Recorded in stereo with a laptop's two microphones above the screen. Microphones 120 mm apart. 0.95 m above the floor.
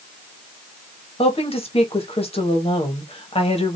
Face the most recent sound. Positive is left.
turn(degrees=55)  # may be behind; listen again after turning